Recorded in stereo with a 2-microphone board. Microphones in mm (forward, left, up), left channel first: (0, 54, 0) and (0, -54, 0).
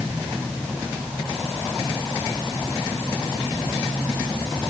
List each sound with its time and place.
Only background noise.